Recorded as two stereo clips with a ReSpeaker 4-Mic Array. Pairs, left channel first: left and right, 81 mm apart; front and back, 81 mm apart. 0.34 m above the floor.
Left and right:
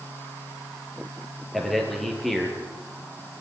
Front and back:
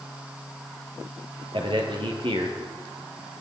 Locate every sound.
1.5 s a man speaking: straight behind, 5.5 m